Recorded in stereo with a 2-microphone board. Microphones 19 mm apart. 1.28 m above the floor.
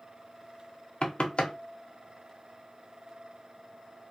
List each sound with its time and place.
1.0 s knocking: 65° left (ahead or behind), 0.5 m